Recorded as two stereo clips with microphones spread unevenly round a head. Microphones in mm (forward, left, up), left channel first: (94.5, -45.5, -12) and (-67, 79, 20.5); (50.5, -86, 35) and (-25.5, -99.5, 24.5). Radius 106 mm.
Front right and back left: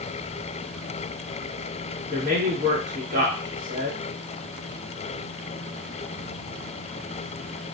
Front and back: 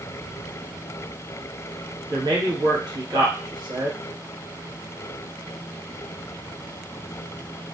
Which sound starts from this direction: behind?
A man speaking, at 2.1 s.